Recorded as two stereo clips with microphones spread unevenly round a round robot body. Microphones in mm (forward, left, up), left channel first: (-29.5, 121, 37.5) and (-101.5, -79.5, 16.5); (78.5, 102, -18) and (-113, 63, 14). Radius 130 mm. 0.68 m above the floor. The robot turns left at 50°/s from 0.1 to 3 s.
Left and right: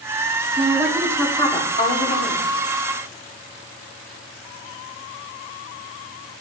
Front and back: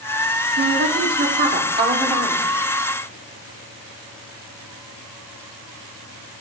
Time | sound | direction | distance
0.6 | a woman speaking | 175° right | 2.0 m